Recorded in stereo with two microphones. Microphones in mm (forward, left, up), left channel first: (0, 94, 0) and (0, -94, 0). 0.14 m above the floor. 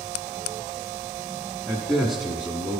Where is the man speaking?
5° left (ahead or behind), 1.7 m; by 2.8 s 10° right (ahead or behind), 1.5 m.